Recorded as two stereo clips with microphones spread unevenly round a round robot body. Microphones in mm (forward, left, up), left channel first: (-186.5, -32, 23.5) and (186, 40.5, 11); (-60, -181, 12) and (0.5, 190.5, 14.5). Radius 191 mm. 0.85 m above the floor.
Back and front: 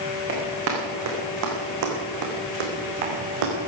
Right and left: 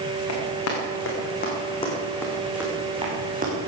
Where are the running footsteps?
50° right, 4.5 m; by 3.5 s 15° left, 4.5 m.